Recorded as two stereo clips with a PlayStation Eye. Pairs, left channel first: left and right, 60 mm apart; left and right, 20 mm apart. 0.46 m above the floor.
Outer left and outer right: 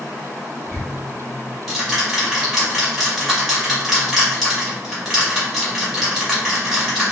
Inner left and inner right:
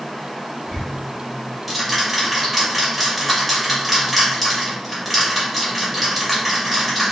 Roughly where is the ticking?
Centre.